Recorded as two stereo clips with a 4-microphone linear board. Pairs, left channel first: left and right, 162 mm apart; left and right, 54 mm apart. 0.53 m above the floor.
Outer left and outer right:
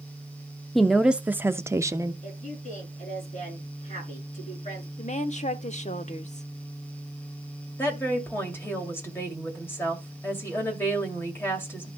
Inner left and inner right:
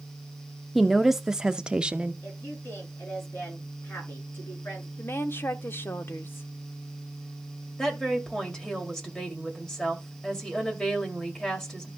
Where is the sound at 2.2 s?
50° left (ahead or behind), 6.5 m.